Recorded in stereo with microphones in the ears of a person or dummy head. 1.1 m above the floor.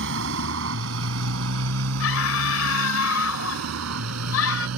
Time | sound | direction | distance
0.0 | a motorcycle | 65° right (ahead or behind) | ?
2.0 | a scream | 80° left | ?